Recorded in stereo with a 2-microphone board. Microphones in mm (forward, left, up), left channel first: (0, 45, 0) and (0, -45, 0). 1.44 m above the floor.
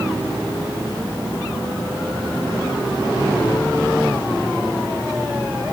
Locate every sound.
Only background noise.